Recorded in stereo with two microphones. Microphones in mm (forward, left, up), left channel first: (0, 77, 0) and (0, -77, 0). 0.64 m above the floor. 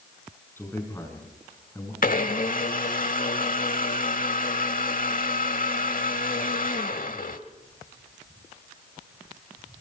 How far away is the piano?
No piano in this recording.